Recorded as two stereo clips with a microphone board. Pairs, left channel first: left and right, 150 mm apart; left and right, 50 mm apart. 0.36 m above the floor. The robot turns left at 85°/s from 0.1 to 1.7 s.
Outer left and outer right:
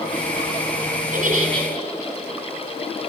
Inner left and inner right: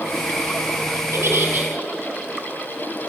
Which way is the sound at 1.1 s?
105° right.